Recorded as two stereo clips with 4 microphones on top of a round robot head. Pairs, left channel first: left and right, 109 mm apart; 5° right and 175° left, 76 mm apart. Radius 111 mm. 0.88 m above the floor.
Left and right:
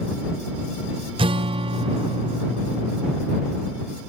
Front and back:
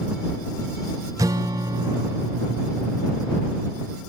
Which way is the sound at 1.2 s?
130° right.